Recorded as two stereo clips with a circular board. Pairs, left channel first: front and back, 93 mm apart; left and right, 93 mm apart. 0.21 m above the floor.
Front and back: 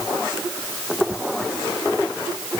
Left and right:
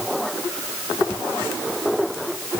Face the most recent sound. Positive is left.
No sound to turn to.